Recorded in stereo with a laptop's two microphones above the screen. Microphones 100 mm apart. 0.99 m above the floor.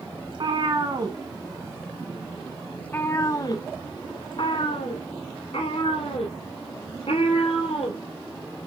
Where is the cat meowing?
55° right (ahead or behind), 1.7 m; by 8.0 s 75° left (ahead or behind), 3.5 m.